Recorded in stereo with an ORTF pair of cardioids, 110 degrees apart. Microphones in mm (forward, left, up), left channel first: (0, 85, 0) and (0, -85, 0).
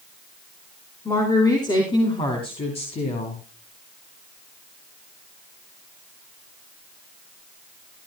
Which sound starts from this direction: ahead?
A woman speaking, at 1.1 s.